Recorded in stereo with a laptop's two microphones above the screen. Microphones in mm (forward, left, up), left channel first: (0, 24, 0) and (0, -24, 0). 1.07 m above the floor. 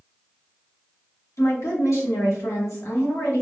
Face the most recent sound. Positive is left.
turn(degrees=75)  # may be behind; listen again after turning